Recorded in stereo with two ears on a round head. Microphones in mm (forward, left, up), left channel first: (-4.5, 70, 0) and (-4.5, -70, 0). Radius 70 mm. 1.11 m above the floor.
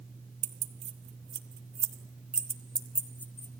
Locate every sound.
0.4 s keys jangling: 45° right (ahead or behind), 1.6 m; by 3.6 s 20° left (ahead or behind), 1.6 m